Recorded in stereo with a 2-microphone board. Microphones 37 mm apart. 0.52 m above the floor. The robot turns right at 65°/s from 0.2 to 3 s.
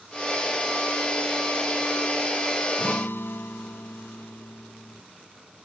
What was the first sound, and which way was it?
A guitar, 70° left (ahead or behind).